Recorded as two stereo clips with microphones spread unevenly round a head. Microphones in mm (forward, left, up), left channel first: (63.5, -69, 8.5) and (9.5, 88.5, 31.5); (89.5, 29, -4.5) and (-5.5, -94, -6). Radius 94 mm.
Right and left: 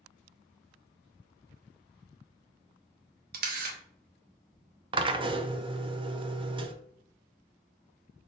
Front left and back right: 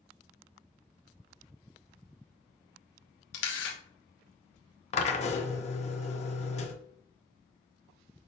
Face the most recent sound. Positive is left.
turn(degrees=55)